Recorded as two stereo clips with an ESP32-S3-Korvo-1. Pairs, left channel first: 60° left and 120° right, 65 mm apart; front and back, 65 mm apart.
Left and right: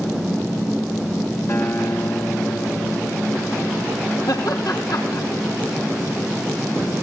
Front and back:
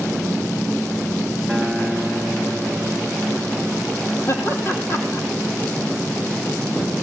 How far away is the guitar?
About 3 m.